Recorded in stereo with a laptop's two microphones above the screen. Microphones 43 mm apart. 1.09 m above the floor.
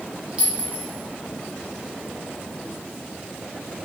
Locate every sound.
0.4 s a clink: 25° right (ahead or behind), 0.9 m